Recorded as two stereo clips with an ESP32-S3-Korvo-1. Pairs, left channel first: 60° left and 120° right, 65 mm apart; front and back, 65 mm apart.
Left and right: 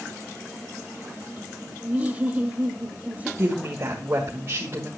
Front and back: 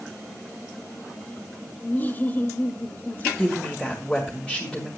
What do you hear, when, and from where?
1.8 s laughter: 55° right, 1.2 m
3.4 s a woman speaking: 75° right, 2.0 m